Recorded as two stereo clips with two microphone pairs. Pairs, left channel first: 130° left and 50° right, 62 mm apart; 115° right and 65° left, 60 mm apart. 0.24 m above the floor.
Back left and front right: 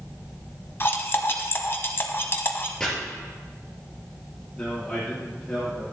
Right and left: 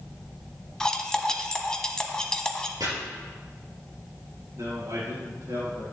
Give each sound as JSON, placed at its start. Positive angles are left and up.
{"t": 0.8, "sound": "cutlery clinking", "azimuth_deg": 165, "distance_m": 0.9}
{"t": 2.8, "sound": "chopping", "azimuth_deg": 50, "distance_m": 3.5}
{"t": 4.5, "sound": "a man speaking", "azimuth_deg": 50, "distance_m": 5.0}